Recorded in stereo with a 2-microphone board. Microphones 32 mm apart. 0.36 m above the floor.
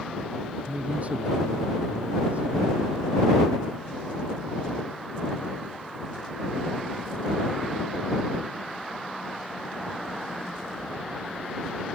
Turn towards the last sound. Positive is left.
turn(degrees=-50)  # may be behind; listen again after turning